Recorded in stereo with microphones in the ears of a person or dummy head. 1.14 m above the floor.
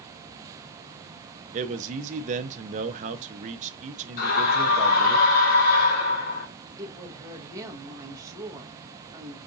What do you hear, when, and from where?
1.5 s a man speaking: 40° right (ahead or behind), 0.6 m
4.2 s a scream: 50° left (ahead or behind), 1.6 m
6.8 s a woman speaking: 20° right (ahead or behind), 1.0 m